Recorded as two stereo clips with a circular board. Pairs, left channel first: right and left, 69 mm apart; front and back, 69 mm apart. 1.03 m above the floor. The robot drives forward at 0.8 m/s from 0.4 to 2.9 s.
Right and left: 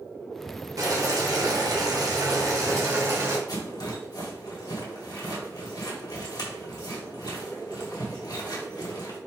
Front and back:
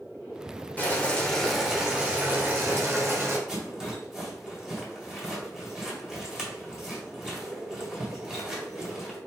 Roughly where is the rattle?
Right.